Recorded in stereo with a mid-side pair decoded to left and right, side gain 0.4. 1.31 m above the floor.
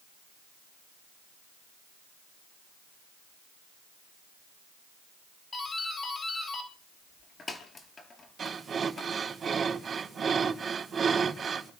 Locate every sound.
5.5 s a doorbell: 45° left, 4 m
8.4 s breathing: 50° right, 4 m